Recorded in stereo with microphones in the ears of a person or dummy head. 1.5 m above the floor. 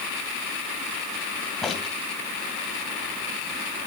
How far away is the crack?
About 1.9 m.